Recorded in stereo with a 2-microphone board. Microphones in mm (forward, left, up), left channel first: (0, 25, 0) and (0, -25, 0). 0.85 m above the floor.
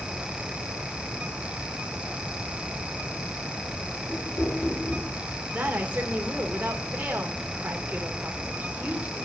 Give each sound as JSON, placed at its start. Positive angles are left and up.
{"t": 4.1, "sound": "knocking", "side_deg": 80, "distance_m": 7.5}
{"t": 5.5, "sound": "a woman speaking", "side_deg": -30, "distance_m": 2.5}